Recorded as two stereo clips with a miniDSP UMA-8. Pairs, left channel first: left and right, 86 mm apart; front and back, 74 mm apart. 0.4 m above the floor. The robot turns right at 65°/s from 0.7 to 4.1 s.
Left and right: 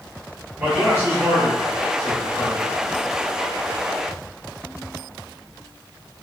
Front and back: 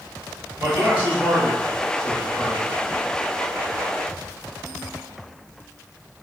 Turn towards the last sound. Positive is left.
turn(degrees=70)